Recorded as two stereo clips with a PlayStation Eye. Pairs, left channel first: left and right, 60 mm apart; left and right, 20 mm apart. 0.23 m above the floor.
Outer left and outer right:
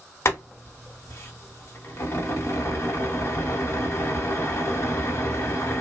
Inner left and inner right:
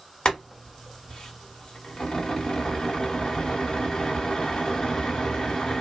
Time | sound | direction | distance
0.2 | boiling | 45° left (ahead or behind) | 1.3 m